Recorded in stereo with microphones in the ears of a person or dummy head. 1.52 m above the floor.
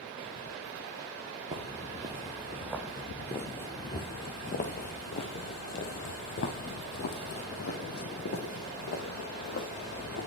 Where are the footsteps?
25° right (ahead or behind), 2.0 m; by 10.3 s 65° left (ahead or behind), 4.5 m.